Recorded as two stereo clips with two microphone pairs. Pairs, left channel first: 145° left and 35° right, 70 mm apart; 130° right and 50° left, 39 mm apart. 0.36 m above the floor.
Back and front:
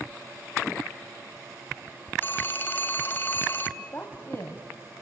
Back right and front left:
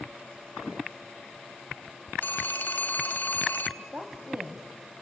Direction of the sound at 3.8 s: 95° left.